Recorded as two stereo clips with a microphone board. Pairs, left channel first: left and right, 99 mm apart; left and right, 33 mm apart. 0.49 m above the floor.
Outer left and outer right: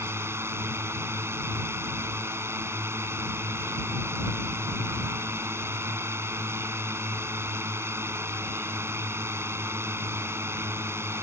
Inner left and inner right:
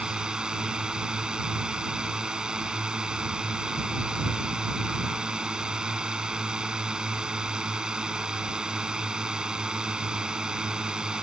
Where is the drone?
25° right (ahead or behind).